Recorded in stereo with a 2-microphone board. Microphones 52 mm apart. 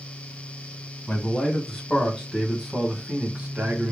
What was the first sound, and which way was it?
A man speaking, 20° left (ahead or behind).